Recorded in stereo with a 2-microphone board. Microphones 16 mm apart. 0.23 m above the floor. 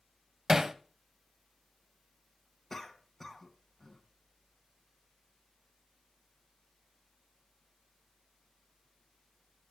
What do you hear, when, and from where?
0.5 s hammering: 20° right (ahead or behind), 0.7 m
2.7 s a cough: 15° left (ahead or behind), 2 m